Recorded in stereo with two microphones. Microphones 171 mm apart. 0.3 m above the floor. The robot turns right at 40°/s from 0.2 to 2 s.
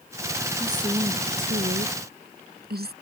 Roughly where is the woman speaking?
Behind.